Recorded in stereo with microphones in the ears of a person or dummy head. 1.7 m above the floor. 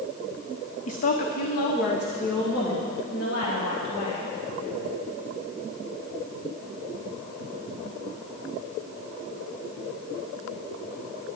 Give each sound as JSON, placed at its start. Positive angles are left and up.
{"t": 0.9, "sound": "a woman speaking", "side_deg": 45, "distance_m": 0.8}